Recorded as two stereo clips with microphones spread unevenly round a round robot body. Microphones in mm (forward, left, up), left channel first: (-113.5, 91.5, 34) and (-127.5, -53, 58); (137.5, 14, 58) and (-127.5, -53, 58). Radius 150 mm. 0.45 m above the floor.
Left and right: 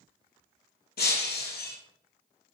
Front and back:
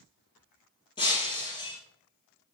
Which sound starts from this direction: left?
Breaking glass, at 1.0 s.